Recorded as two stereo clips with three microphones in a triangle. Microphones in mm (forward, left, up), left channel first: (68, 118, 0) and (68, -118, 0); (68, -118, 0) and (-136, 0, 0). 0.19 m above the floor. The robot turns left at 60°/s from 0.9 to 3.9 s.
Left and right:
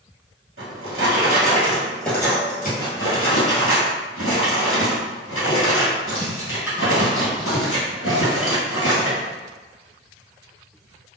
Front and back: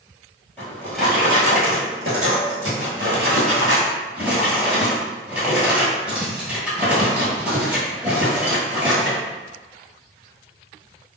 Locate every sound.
0.6 s a drawer: 115° right, 1.6 m; by 9.2 s 65° left, 1.6 m